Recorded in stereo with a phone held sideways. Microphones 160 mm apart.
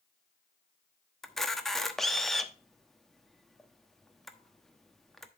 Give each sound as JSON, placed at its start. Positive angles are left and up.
{"t": 1.2, "sound": "a camera shutter", "side_deg": 0, "distance_m": 1.0}